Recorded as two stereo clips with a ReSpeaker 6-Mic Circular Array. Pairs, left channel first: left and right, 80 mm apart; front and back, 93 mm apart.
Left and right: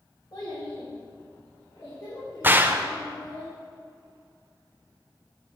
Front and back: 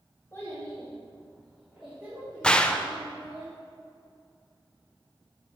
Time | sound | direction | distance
0.3 | a child speaking | 60° left | 2 m
2.4 | a gunshot | 65° right | 0.6 m